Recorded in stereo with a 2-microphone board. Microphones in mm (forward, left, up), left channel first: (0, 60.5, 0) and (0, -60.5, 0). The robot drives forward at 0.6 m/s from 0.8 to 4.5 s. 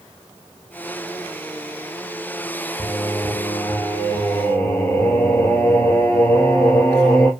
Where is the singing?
30° left (ahead or behind), 0.9 m; by 7.3 s 15° left (ahead or behind), 1.6 m.